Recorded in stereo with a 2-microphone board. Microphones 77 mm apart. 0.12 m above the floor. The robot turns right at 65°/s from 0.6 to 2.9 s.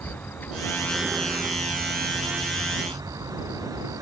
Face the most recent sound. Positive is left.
turn(degrees=-55)